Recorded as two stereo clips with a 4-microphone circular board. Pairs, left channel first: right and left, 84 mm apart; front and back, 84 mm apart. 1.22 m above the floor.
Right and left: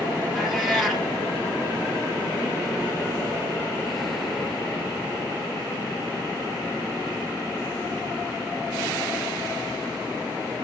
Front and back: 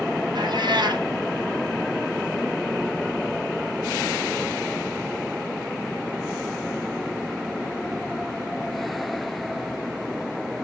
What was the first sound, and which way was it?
A cat meowing, straight behind.